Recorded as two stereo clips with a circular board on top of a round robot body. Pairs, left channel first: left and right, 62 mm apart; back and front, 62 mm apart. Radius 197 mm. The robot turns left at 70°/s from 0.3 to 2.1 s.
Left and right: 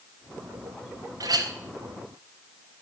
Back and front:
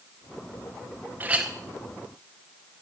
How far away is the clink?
About 0.6 m.